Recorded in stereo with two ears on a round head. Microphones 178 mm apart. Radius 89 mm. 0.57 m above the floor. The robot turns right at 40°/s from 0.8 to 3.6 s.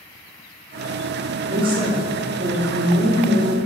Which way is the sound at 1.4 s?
125° right.